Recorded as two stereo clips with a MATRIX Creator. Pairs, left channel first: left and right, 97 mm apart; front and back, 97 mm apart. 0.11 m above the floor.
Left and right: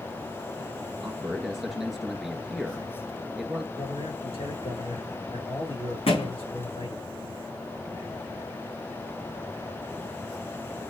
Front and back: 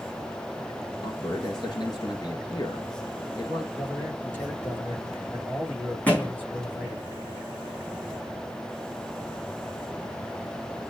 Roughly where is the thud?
Left.